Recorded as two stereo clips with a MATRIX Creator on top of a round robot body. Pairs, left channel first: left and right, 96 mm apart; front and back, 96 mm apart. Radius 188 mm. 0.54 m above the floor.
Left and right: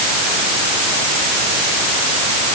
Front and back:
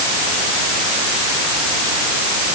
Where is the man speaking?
I don't hear a man speaking.